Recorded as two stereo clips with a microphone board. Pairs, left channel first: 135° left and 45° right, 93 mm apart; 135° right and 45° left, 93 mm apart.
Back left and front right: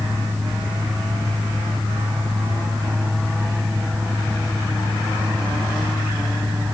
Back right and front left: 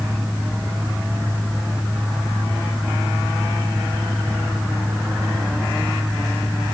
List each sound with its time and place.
Only background noise.